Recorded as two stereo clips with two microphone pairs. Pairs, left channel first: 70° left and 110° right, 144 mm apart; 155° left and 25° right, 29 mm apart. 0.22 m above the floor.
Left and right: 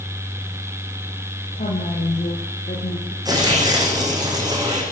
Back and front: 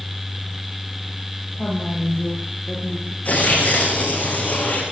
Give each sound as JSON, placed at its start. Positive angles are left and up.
{"t": 1.6, "sound": "a woman speaking", "azimuth_deg": 95, "distance_m": 6.5}
{"t": 3.2, "sound": "tearing paper", "azimuth_deg": -175, "distance_m": 9.0}